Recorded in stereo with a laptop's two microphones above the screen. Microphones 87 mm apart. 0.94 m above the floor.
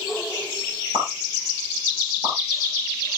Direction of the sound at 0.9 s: 45° right (ahead or behind).